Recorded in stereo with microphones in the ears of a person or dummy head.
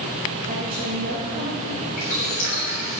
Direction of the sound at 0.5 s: 35° right (ahead or behind).